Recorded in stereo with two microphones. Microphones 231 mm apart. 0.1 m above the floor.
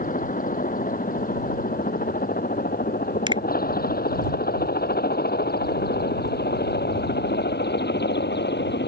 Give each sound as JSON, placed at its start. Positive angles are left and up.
{"t": 0.0, "sound": "a helicopter", "side_deg": 35}
{"t": 3.3, "sound": "a finger snap", "side_deg": -20}